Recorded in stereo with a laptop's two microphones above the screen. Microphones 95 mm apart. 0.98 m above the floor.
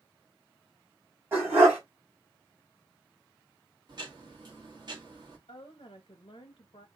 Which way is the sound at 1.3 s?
25° right (ahead or behind).